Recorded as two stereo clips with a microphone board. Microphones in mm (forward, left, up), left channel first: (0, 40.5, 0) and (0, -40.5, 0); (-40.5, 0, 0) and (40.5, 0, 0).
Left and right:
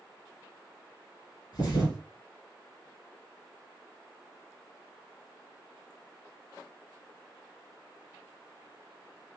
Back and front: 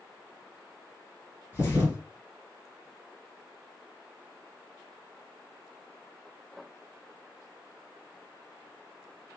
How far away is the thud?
About 2.5 m.